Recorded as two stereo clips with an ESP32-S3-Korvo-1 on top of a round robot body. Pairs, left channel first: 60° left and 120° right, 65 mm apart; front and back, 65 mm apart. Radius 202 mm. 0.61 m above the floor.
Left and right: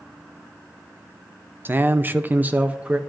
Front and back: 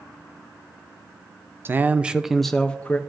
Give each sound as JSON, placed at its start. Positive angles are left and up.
{"t": 1.6, "sound": "a man speaking", "azimuth_deg": -155, "distance_m": 0.8}